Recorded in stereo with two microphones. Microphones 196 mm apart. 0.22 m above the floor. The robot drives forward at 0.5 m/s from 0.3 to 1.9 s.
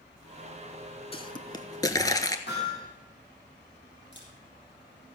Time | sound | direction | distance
1.1 | a pop | 30° left (ahead or behind) | 0.7 m
2.5 | hammering | 60° left (ahead or behind) | 7 m
4.1 | a camera shutter | 65° left (ahead or behind) | 4 m